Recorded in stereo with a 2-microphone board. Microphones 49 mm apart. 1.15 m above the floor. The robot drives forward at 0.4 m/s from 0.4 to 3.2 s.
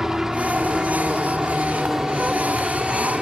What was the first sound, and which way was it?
A helicopter, 10° right (ahead or behind).